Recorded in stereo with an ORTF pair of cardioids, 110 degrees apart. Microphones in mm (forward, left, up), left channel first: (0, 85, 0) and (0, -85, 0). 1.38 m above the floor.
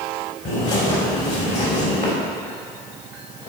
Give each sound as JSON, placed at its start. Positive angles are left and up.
{"t": 0.5, "sound": "a bird", "azimuth_deg": 50, "distance_m": 3.5}